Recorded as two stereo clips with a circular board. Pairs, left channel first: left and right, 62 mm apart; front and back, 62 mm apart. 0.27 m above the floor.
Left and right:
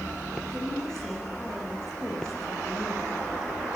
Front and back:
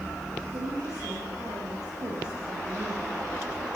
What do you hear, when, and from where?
0.5 s a woman speaking: 170° left, 9 m